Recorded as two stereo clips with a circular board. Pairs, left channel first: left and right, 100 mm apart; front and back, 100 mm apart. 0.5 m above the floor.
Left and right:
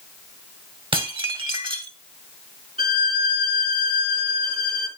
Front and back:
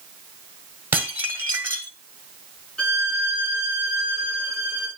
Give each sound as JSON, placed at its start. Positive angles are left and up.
{"t": 0.9, "sound": "dishes clattering", "azimuth_deg": -115, "distance_m": 1.7}
{"t": 2.8, "sound": "a violin", "azimuth_deg": -80, "distance_m": 4.0}